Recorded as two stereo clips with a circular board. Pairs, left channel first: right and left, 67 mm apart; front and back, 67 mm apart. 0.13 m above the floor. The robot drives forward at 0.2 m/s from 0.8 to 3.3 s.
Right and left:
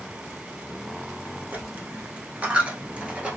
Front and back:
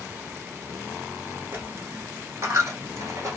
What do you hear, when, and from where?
1.5 s a dropped coin: 140° left, 0.7 m; by 3.4 s 155° left, 1.0 m